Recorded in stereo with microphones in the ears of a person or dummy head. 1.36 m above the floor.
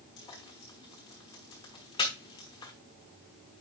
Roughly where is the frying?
Left.